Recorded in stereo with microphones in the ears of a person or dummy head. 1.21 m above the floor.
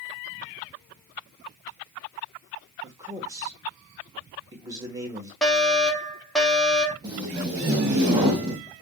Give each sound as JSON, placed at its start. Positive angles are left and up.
{"t": 2.8, "sound": "a man speaking", "side_deg": -15, "distance_m": 1.0}
{"t": 5.4, "sound": "a fire alarm", "side_deg": 0, "distance_m": 0.9}
{"t": 7.0, "sound": "tape being pulled", "side_deg": -10, "distance_m": 0.9}